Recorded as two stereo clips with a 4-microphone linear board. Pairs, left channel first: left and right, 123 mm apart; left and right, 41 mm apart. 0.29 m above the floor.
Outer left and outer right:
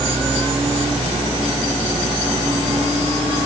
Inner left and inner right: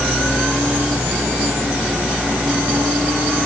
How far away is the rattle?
No rattle in this recording.